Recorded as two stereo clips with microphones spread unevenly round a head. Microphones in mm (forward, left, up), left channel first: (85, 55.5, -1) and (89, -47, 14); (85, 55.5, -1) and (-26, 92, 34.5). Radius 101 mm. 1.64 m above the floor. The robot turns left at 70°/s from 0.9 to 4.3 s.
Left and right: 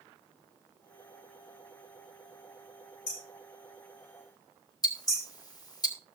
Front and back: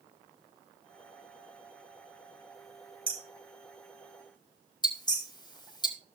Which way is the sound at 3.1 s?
125° left.